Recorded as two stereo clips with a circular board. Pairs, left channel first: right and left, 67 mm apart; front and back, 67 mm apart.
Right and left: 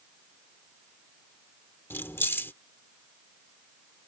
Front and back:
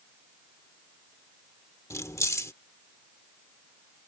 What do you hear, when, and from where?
1.9 s keys jangling: 40° right